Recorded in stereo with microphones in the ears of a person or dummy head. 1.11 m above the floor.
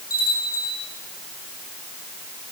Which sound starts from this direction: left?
A bell, at 0.1 s.